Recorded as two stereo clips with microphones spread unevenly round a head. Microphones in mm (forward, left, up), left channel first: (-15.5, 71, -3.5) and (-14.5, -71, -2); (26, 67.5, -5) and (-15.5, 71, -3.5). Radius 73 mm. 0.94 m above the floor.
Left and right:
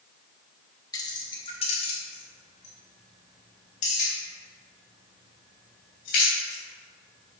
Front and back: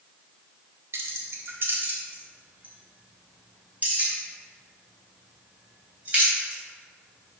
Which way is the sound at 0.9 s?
155° left.